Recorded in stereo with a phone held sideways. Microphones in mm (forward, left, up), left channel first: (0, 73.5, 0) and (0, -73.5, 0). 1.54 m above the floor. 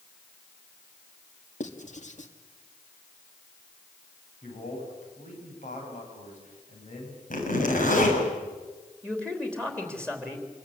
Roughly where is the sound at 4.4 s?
Left.